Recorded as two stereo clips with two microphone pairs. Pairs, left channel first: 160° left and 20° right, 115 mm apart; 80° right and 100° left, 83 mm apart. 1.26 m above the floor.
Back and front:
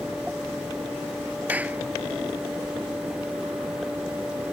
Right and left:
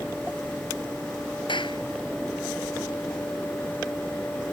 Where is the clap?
95° right.